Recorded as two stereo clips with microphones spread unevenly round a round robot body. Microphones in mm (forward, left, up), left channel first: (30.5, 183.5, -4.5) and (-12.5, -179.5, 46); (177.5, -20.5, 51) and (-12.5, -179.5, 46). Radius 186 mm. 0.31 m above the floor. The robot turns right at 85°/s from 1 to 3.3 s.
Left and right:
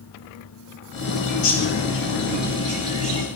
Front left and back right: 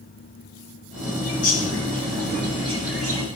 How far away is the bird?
About 3 m.